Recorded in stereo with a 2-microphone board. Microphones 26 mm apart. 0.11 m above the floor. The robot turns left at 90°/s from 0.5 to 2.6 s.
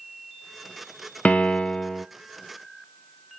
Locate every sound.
1.2 s a piano: 85° left, 0.7 m; by 2.1 s 10° left, 0.7 m